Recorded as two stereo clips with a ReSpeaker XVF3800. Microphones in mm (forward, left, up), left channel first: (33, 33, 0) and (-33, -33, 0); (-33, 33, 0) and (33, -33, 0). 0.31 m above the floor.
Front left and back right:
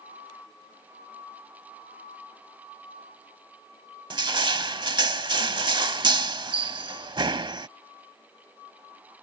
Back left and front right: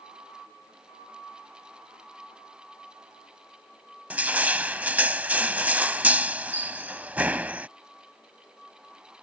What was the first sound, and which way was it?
Crushing, 115° right.